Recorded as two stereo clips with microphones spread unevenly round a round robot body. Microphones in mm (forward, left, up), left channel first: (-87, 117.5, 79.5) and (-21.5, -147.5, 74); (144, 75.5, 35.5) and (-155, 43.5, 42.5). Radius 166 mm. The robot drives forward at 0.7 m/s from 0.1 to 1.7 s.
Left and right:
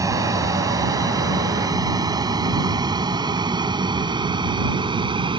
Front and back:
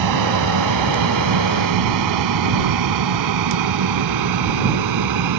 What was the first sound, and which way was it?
An aircraft, 155° right.